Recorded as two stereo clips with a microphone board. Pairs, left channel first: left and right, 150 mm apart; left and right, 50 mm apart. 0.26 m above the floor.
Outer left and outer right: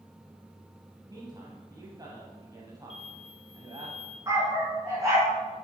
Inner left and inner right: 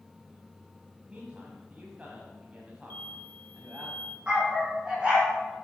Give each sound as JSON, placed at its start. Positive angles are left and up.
{"t": 1.1, "sound": "a man speaking", "side_deg": -25, "distance_m": 1.7}
{"t": 2.9, "sound": "an explosion", "side_deg": 40, "distance_m": 1.6}
{"t": 4.3, "sound": "a dog barking", "side_deg": -20, "distance_m": 5.5}